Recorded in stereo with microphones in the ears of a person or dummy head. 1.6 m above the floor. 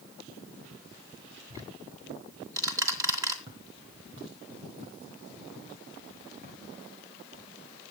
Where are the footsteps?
30° right (ahead or behind), 2 m; by 7.5 s 50° right (ahead or behind), 6 m.